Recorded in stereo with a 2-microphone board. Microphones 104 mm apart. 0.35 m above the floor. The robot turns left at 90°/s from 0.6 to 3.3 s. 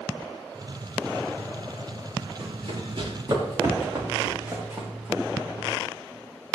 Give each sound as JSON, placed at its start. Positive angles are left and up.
{"t": 2.4, "sound": "running footsteps", "side_deg": -60, "distance_m": 6.5}